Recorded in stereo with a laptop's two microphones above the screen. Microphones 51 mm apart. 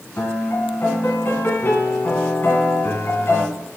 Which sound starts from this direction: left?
A piano, at 0.2 s.